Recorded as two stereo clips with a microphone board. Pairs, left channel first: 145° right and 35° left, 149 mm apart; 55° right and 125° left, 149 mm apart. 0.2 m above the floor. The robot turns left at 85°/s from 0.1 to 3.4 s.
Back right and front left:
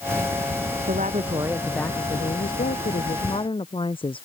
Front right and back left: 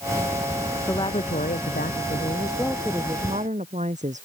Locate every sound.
0.9 s a woman speaking: 15° left; by 4.2 s 160° left